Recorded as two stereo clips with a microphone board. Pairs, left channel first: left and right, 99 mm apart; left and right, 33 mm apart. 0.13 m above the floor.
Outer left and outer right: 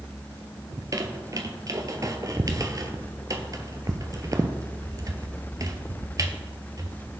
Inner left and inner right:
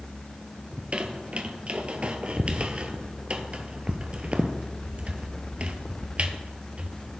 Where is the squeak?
35° right (ahead or behind), 0.9 m.